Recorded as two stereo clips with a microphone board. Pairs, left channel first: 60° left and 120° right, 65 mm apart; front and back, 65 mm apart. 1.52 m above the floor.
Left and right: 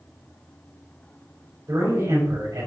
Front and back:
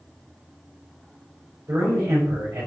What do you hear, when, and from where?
1.7 s a man speaking: 155° right, 4 m